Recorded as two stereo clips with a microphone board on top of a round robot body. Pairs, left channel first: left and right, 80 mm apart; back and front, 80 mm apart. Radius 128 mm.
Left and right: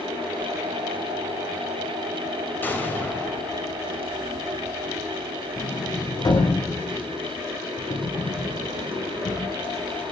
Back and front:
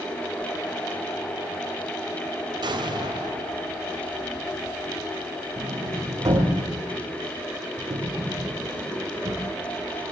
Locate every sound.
2.6 s an explosion: 25° left, 4 m
5.6 s a sliding door: 55° left, 9 m